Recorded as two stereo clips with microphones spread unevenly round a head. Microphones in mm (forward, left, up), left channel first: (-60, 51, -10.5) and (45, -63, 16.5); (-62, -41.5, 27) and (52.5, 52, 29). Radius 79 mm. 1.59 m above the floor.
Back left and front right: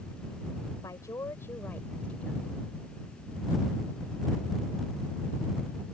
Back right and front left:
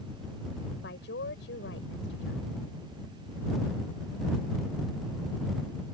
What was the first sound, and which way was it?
A woman speaking, 155° right.